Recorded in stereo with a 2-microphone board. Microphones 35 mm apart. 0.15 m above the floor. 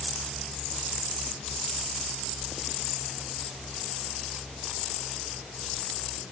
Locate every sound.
Only background noise.